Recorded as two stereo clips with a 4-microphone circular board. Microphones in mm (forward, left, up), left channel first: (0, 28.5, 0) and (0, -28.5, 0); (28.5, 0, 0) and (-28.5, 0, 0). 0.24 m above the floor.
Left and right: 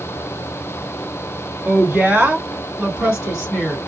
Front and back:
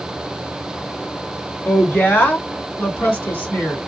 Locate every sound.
1.6 s a woman speaking: 35° right, 2.5 m; by 3.8 s straight ahead, 2 m